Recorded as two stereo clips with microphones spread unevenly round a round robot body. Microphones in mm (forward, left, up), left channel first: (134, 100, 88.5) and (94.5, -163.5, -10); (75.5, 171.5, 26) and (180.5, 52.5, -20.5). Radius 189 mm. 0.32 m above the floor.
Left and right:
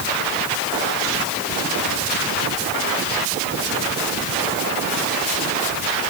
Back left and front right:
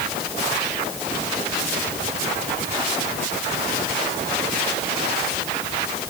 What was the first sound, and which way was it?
Only background noise.